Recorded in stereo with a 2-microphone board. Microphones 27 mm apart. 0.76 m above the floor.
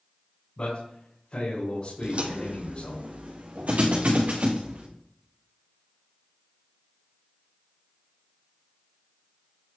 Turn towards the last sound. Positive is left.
turn(degrees=-80)